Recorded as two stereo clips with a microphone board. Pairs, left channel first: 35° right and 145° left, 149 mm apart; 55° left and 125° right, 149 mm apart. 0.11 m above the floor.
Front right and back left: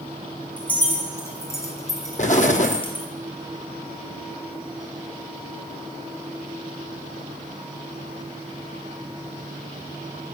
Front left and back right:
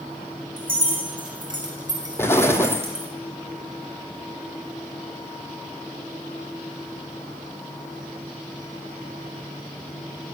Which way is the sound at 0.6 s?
115° right.